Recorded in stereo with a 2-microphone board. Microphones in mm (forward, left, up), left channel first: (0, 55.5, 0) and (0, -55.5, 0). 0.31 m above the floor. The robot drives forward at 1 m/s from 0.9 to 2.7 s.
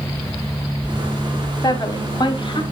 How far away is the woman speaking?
About 1.8 m.